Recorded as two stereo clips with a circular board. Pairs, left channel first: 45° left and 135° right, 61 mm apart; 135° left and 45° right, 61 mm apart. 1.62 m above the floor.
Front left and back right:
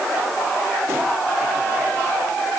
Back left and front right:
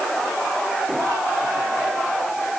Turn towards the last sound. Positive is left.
No sound to turn to.